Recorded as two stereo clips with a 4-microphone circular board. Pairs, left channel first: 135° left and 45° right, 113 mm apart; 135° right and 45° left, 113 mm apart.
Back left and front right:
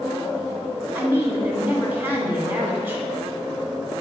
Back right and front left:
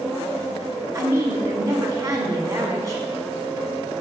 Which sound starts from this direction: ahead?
A woman speaking, at 0.9 s.